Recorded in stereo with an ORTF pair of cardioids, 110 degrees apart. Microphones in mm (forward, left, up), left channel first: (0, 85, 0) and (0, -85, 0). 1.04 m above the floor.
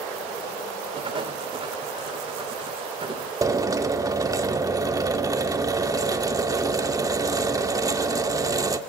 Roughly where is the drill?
Ahead.